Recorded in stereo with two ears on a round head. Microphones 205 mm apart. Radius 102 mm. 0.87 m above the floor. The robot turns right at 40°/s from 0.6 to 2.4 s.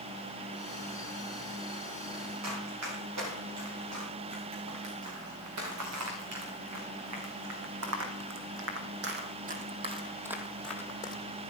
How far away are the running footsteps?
About 7.5 m.